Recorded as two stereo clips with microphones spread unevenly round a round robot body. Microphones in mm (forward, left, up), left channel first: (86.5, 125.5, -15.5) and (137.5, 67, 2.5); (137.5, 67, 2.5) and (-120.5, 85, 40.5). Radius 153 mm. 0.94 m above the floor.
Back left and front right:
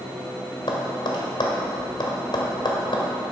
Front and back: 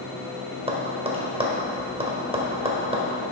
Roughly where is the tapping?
Left.